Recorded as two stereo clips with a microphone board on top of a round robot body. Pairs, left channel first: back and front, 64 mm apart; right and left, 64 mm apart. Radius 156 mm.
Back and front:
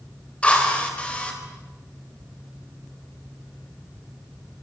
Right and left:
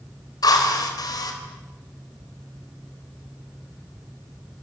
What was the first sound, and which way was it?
A drill, 110° right.